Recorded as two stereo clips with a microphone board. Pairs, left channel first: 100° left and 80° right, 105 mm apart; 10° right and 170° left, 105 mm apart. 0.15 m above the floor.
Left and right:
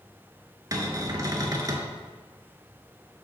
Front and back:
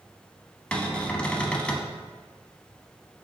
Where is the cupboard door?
85° right, 0.6 m.